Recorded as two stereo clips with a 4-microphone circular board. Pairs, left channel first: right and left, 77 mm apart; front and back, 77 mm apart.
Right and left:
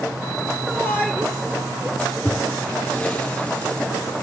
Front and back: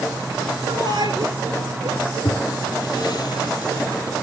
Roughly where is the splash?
Ahead.